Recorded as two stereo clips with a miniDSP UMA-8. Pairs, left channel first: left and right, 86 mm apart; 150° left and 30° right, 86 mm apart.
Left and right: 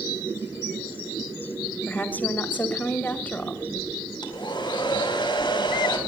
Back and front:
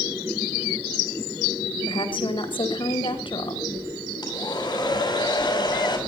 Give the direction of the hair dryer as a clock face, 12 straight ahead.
8 o'clock.